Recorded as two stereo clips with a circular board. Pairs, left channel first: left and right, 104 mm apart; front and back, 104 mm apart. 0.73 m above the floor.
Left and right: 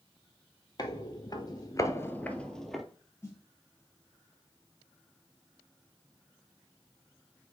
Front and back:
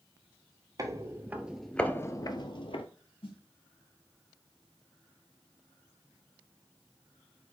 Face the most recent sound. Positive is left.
turn(degrees=25)